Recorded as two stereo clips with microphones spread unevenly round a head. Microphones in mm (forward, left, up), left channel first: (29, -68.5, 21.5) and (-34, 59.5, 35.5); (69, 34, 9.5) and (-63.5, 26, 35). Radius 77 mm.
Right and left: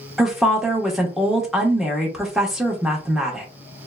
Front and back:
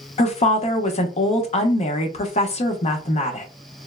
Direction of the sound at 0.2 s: 25° left.